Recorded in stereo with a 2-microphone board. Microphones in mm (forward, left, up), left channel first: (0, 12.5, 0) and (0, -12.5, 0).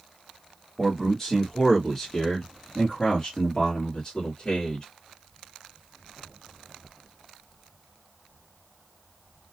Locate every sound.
0.8 s a man speaking: 5° left (ahead or behind), 1.4 m; by 4.8 s 25° left (ahead or behind), 1.7 m